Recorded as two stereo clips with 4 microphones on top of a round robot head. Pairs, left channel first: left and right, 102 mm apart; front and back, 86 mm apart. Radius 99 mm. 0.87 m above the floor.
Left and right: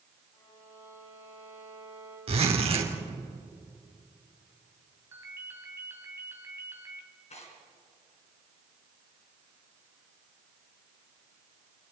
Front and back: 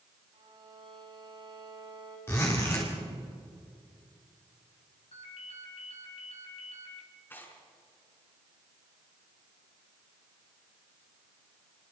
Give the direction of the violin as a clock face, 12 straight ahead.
7 o'clock.